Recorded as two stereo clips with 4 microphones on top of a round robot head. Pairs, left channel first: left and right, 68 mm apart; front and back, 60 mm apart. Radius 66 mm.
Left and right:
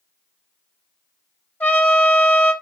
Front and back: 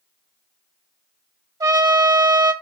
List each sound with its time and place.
1.6 s a trumpet: 160° left, 1.8 m